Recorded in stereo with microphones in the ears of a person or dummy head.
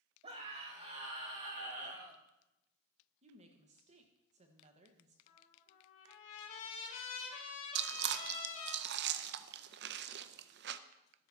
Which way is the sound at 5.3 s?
40° left (ahead or behind).